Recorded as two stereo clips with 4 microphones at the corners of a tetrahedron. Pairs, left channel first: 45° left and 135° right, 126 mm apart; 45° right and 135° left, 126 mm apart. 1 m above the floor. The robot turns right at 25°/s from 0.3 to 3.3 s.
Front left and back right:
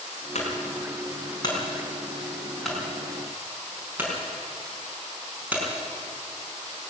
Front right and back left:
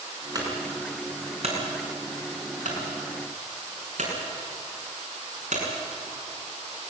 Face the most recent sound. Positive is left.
turn(degrees=150)